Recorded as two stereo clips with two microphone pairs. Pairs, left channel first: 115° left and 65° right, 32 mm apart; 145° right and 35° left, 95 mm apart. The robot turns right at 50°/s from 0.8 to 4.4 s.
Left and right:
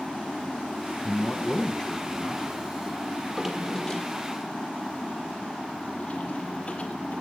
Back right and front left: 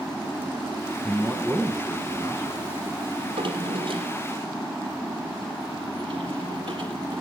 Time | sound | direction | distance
1.0 | a man speaking | 125° left | 1.3 m
3.2 | a drawer | 5° left | 1.8 m